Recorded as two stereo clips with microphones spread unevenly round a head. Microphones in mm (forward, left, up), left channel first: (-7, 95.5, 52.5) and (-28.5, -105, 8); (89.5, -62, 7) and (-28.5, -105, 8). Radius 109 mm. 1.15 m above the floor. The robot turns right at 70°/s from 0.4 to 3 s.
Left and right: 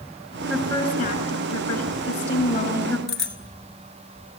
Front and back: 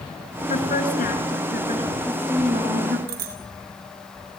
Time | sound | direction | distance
0.5 | a woman speaking | 5° right | 7.5 m
3.1 | a bicycle bell | 170° left | 2.5 m